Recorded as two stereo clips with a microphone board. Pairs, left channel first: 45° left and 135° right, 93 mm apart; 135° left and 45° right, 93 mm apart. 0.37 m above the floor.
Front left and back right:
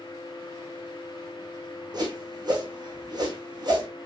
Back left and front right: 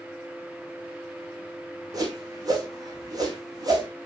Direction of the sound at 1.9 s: 95° right.